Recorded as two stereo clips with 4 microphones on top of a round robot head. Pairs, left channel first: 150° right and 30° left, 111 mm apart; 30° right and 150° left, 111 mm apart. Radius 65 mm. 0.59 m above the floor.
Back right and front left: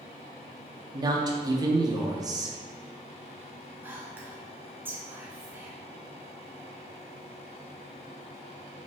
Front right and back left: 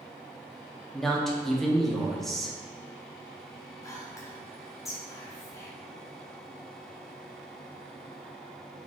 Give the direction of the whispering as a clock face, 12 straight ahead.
1 o'clock.